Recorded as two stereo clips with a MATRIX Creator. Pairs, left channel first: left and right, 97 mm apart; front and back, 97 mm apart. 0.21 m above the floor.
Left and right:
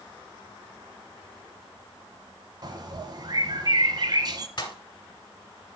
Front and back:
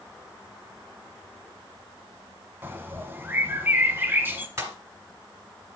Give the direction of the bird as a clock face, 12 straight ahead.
4 o'clock.